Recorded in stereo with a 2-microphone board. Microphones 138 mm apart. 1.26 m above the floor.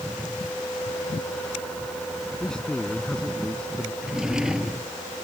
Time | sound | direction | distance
2.4 | a man speaking | 5° left (ahead or behind) | ?
4.0 | a drawer | 5° right (ahead or behind) | ?